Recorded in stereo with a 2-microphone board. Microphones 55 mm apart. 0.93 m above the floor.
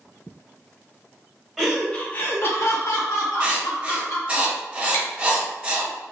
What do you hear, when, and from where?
1.6 s laughter: 10° right (ahead or behind), 0.5 m; by 4.4 s 75° left (ahead or behind), 1.8 m
3.4 s writing: 25° right (ahead or behind), 0.9 m
4.9 s chewing: 65° left (ahead or behind), 1.5 m